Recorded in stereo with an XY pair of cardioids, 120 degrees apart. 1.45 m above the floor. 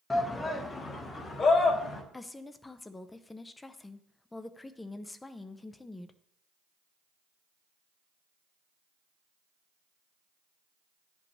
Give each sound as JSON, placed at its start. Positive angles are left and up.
{"t": 0.1, "sound": "a shout", "azimuth_deg": 20, "distance_m": 0.8}
{"t": 2.1, "sound": "a woman speaking", "azimuth_deg": 20, "distance_m": 0.6}